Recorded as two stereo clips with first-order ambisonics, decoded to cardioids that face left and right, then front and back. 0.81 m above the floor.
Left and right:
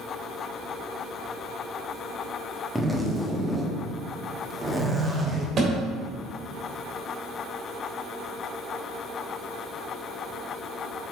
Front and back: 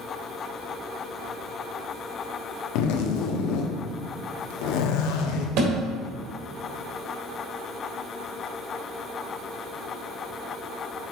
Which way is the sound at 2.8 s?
5° right.